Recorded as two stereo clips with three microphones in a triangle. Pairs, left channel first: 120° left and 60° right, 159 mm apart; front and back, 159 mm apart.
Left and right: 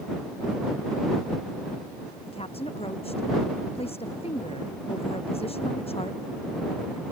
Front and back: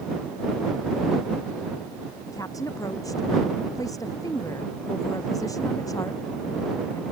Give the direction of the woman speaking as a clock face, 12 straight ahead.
10 o'clock.